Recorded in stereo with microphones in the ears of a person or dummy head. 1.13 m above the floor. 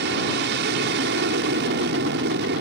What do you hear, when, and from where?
0.0 s an aircraft: 50° right (ahead or behind)